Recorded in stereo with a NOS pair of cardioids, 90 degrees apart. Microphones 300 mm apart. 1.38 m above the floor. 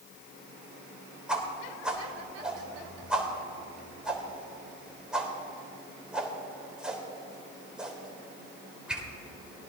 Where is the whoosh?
5° right, 3.5 m.